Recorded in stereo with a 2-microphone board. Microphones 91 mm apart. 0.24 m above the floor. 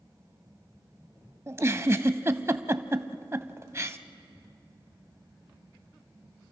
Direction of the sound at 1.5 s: 30° right (ahead or behind).